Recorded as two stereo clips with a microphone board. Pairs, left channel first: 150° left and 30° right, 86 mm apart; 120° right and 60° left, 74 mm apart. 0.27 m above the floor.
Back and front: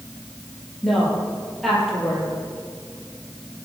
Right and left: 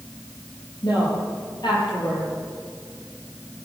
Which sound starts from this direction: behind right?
A woman speaking, at 0.8 s.